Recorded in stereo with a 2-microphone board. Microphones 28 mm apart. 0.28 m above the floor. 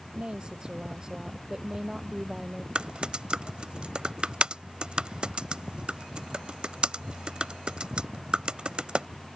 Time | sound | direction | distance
0.1 | a woman speaking | 30° right (ahead or behind) | ?
2.8 | typing on a keyboard | 35° right (ahead or behind) | ?